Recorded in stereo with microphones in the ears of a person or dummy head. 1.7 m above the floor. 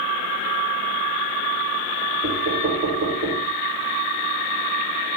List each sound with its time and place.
2.2 s knocking: 50° right (ahead or behind), 3.5 m